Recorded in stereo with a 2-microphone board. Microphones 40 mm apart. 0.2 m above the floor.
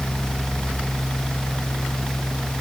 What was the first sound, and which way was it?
Only background noise.